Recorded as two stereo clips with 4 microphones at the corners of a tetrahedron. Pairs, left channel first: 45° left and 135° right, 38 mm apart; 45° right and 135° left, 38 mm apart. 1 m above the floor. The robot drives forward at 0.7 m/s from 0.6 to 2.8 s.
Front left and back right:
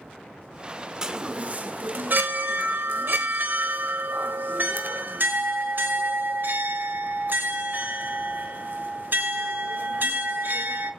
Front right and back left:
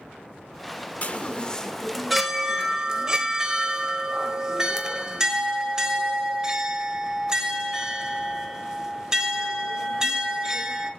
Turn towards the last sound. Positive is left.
turn(degrees=-155)